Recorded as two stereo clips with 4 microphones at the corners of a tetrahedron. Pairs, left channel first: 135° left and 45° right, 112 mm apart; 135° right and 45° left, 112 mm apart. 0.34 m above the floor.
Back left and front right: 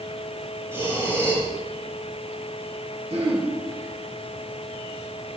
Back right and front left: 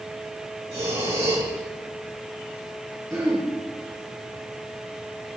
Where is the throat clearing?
20° right, 5 m.